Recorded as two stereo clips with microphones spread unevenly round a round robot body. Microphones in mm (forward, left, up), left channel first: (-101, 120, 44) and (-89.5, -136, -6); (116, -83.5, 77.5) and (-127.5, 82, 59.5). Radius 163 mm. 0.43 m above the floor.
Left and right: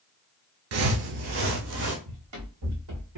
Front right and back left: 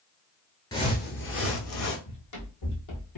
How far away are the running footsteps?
About 1.9 m.